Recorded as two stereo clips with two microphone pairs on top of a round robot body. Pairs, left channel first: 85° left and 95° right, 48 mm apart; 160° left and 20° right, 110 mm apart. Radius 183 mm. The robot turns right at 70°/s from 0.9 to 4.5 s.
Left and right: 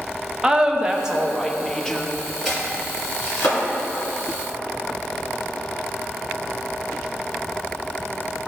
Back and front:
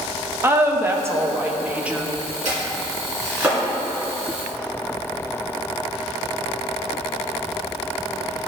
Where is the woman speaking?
35° right, 1.2 m; by 2.1 s 50° left, 1.2 m.